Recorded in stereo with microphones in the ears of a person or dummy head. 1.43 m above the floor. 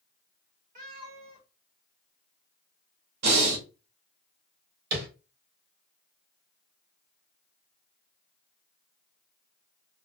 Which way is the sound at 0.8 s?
40° right (ahead or behind).